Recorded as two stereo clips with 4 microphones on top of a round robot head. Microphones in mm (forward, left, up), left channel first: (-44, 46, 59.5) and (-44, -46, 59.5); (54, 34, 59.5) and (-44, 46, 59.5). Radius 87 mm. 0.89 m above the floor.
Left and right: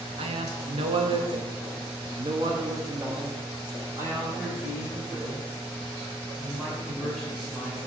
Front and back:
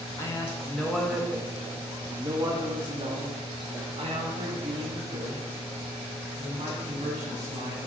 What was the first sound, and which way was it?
A man speaking, 70° right.